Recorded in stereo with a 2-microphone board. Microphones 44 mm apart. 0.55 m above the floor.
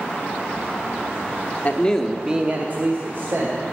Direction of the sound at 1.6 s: 35° left (ahead or behind).